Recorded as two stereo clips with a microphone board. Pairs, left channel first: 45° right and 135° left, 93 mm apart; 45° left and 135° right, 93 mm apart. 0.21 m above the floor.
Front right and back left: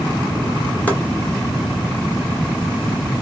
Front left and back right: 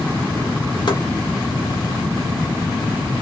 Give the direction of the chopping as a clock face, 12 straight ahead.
11 o'clock.